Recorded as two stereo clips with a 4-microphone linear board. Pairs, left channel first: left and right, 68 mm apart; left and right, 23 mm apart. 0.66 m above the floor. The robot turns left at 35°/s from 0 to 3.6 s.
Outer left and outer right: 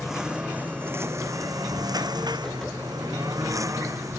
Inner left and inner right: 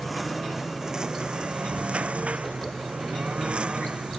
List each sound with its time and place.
0.0 s a lawn mower: 5° right; by 4.2 s 130° right